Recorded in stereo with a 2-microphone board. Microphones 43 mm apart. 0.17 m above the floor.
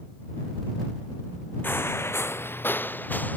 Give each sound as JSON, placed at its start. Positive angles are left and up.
{"t": 1.6, "sound": "footsteps", "side_deg": 55}